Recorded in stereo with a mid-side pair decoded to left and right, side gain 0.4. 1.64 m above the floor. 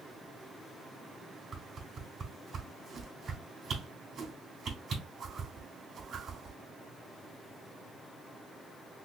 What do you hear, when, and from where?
1.5 s a whoosh: 65° right, 3 m